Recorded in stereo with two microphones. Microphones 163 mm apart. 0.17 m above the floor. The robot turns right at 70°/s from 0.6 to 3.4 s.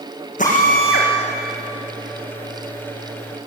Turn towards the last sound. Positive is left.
turn(degrees=-115)